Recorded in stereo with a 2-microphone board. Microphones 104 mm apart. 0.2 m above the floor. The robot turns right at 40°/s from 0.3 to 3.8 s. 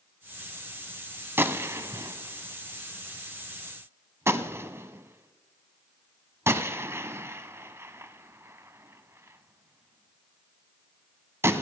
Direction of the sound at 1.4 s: 20° right (ahead or behind).